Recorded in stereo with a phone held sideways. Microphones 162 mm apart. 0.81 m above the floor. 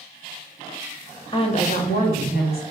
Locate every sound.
1.3 s a woman speaking: 30° left (ahead or behind), 0.5 m; by 2.6 s 75° left (ahead or behind), 1.1 m